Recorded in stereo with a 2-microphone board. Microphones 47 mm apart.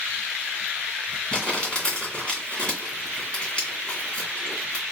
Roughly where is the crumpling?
Left.